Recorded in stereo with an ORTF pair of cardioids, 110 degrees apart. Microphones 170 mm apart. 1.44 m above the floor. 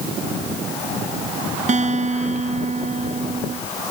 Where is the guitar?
45° right.